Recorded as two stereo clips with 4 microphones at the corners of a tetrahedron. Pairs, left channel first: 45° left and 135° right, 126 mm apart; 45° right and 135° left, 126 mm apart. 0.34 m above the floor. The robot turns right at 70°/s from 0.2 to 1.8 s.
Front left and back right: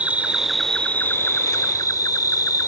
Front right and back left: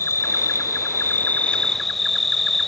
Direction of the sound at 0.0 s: 70° right.